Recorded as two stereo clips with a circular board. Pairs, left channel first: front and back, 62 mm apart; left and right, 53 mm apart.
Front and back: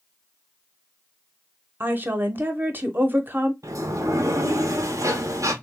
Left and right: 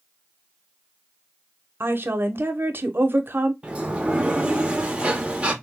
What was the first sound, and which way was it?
A woman speaking, 125° right.